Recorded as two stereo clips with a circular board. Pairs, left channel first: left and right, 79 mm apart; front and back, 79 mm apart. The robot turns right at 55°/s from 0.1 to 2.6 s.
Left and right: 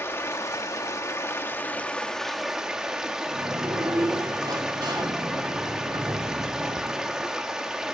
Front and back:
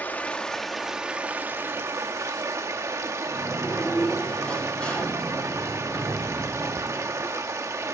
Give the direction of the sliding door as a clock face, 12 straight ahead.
3 o'clock.